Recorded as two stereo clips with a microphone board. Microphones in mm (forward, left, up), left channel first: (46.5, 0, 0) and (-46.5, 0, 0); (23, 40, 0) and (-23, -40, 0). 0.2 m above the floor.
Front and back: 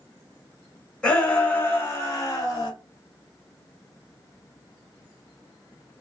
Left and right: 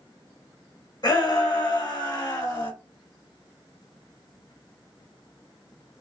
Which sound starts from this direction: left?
A shout, at 1.0 s.